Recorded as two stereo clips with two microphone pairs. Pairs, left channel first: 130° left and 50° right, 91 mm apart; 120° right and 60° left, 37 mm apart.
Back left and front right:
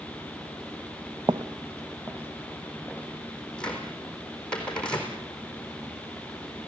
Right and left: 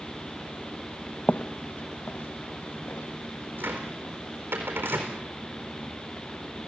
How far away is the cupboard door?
About 4 m.